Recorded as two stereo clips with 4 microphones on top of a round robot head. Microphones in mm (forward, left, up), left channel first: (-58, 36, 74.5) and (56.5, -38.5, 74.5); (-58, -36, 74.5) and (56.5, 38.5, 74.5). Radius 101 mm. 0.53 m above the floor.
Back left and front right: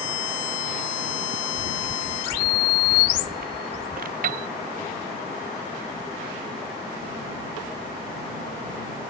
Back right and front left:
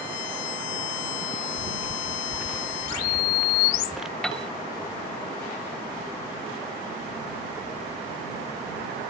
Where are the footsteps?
40° right; by 4.1 s 55° right.